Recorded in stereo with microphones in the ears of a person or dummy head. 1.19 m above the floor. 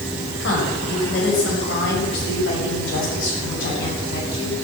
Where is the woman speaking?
70° left (ahead or behind), 6 m; by 4.5 s 65° left (ahead or behind), 9 m.